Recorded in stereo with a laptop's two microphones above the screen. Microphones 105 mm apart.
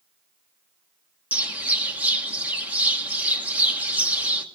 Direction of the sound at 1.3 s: 15° right (ahead or behind).